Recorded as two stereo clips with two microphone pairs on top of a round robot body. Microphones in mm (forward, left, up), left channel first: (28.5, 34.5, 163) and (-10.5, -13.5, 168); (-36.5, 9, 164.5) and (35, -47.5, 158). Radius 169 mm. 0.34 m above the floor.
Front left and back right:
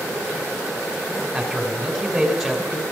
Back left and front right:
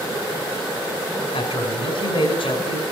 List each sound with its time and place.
1.3 s a man speaking: 145° left, 5 m